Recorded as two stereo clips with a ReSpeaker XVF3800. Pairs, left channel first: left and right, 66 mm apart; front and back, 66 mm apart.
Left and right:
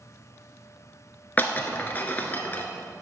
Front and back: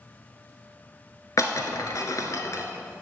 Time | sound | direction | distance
1.4 | breaking glass | 25° left | 1.0 m